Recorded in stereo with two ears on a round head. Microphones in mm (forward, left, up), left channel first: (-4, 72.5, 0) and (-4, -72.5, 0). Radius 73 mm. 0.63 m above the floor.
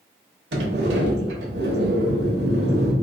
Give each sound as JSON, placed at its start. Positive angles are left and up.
{"t": 0.5, "sound": "a sliding door", "side_deg": -80, "distance_m": 0.9}